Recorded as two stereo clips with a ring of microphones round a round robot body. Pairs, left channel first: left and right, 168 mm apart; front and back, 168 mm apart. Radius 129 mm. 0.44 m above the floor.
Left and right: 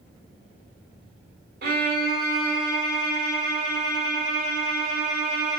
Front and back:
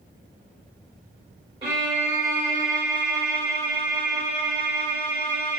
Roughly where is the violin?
Behind right.